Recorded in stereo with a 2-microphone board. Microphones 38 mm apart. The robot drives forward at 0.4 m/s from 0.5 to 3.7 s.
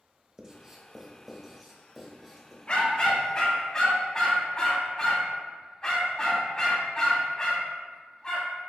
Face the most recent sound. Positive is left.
turn(degrees=20)  # may be behind; listen again after turning